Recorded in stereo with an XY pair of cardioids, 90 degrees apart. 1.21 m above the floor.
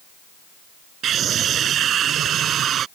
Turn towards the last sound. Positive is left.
turn(degrees=-70)